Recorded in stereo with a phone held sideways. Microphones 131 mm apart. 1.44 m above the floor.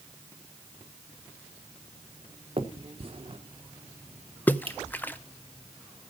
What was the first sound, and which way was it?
A finger snap, 45° right (ahead or behind).